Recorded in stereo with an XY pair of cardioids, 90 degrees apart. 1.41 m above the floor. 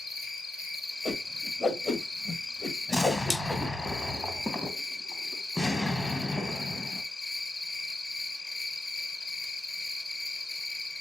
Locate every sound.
0.0 s an insect: 45° left, 1.5 m
1.1 s a whoosh: 40° left, 1.5 m
2.9 s an explosion: 20° left, 1.1 m